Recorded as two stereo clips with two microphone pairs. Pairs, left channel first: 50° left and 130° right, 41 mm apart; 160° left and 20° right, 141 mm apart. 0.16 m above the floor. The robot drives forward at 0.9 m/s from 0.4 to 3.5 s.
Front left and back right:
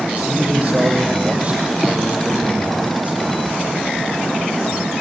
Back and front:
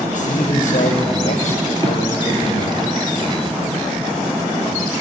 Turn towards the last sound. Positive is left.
turn(degrees=180)